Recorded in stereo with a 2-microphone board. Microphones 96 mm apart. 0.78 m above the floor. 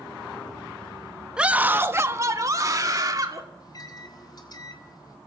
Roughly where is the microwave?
Left.